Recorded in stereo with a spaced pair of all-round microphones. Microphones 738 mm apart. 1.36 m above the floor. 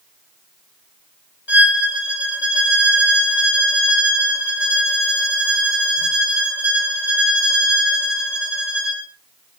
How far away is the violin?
About 3.5 m.